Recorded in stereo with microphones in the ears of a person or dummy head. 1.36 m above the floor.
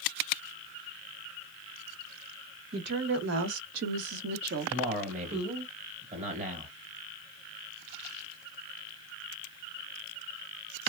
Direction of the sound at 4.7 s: 35° right (ahead or behind).